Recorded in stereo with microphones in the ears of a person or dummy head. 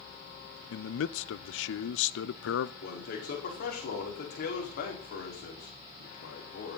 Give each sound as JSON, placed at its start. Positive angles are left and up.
{"t": 0.7, "sound": "a man speaking", "side_deg": 85, "distance_m": 0.8}
{"t": 2.8, "sound": "a man speaking", "side_deg": 50, "distance_m": 4.5}